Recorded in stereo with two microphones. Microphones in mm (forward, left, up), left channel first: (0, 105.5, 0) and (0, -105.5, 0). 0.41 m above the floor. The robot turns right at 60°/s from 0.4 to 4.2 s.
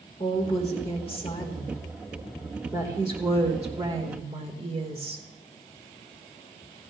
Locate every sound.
0.2 s a woman speaking: 25° left (ahead or behind), 1.5 m; by 5.2 s 25° right (ahead or behind), 1.5 m